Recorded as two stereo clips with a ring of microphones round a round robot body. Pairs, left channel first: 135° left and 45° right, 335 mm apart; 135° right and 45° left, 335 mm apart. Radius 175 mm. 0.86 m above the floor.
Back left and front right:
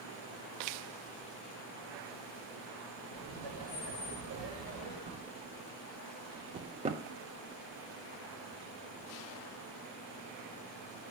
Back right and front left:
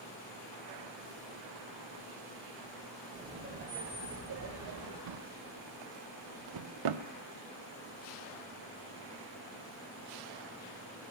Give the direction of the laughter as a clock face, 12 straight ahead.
1 o'clock.